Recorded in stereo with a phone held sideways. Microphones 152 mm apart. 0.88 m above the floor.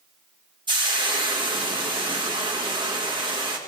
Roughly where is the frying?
Right.